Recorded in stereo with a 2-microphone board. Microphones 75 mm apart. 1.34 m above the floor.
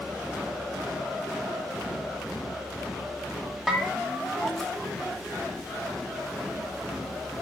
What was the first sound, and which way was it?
A bell, centre (ahead or behind).